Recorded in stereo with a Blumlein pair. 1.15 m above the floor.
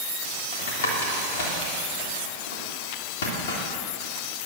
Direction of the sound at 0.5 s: 60° left.